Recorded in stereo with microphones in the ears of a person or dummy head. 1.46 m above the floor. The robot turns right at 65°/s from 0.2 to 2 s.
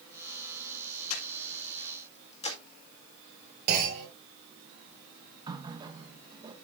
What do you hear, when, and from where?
1.1 s breathing: 80° left, 1.8 m; by 2.6 s 35° left (ahead or behind), 1.8 m
3.7 s a clunk: 50° right (ahead or behind), 4 m
5.5 s a running tap: 25° right (ahead or behind), 1.1 m